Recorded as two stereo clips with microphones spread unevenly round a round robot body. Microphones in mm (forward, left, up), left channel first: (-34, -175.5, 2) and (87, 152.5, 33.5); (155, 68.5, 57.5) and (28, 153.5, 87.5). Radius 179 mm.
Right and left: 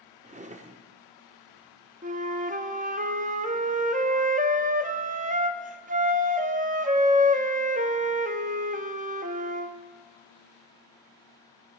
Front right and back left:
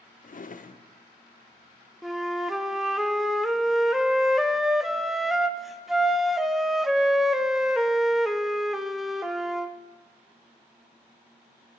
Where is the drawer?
5° right, 0.8 m.